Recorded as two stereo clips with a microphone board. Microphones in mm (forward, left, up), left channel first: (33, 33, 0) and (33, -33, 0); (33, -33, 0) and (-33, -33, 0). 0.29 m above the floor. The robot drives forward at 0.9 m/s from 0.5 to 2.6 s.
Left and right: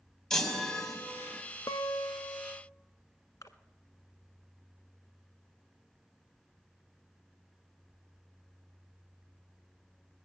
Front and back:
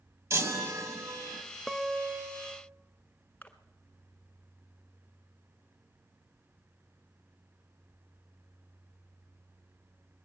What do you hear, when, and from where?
0.3 s a chime: 170° left, 1.4 m; by 1.4 s 175° left, 2 m
1.7 s a guitar: 80° left, 0.7 m; by 2.6 s 140° left, 1.0 m
3.4 s a splash: 60° left, 1.2 m